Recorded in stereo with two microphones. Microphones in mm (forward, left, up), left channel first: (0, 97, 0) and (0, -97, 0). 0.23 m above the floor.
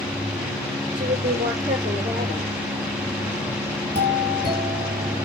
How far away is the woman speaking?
About 9.5 m.